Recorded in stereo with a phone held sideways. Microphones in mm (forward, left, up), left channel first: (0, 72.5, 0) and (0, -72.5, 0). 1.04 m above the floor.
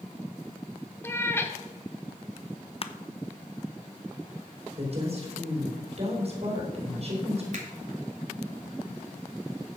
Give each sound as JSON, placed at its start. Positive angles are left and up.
{"t": 1.0, "sound": "a cat meowing", "side_deg": 15, "distance_m": 1.0}
{"t": 2.8, "sound": "crushing", "side_deg": 40, "distance_m": 0.7}
{"t": 4.8, "sound": "a woman speaking", "side_deg": -45, "distance_m": 4.0}
{"t": 7.5, "sound": "a finger snap", "side_deg": -55, "distance_m": 3.0}